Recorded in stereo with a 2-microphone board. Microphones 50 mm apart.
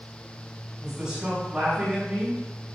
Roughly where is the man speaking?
Centre.